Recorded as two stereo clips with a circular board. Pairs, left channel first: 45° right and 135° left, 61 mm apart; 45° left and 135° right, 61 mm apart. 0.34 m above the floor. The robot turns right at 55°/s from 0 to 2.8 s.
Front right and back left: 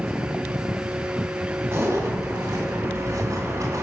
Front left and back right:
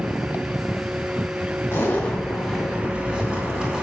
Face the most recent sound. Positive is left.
turn(degrees=150)